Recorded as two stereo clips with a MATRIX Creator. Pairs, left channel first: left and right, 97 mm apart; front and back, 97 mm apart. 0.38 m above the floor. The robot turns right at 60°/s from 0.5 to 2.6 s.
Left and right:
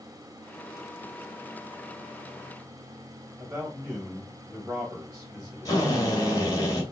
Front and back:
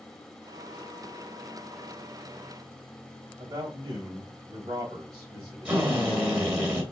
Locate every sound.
3.4 s a man speaking: 160° right, 1.1 m
5.7 s a drill: 110° left, 1.6 m